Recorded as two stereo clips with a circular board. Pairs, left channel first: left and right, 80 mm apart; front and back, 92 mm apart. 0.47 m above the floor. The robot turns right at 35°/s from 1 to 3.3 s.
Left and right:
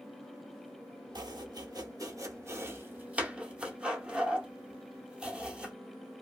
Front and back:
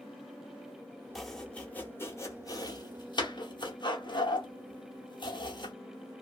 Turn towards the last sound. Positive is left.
turn(degrees=-15)